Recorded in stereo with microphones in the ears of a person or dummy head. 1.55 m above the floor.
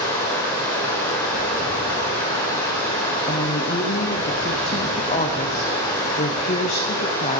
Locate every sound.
0.0 s running water: 15° left (ahead or behind), 1.3 m
3.3 s a woman speaking: 35° left (ahead or behind), 0.7 m